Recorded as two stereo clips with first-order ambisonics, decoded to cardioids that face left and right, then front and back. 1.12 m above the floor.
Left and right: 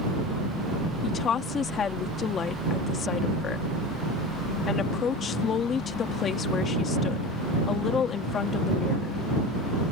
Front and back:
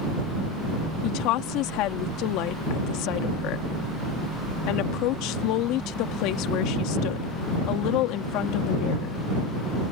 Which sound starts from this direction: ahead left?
A woman speaking, at 1.0 s.